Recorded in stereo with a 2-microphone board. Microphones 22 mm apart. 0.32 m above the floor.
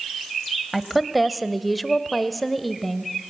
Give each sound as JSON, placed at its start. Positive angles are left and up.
{"t": 0.7, "sound": "a woman speaking", "side_deg": 0, "distance_m": 1.3}